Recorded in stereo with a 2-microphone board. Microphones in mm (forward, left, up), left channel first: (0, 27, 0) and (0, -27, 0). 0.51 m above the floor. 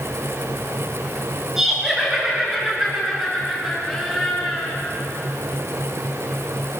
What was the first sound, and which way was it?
Laughter, 10° right (ahead or behind).